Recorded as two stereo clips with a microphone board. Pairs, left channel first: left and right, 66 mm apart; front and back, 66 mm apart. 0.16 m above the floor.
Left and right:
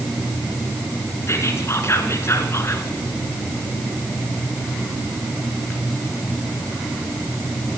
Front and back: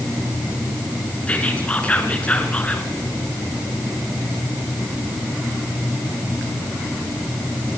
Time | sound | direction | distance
1.3 | whispering | 65° left | 2 m